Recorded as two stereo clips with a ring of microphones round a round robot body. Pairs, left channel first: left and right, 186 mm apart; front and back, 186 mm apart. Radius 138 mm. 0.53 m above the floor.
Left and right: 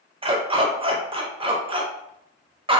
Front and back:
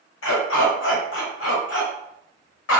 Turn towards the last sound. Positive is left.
turn(degrees=-25)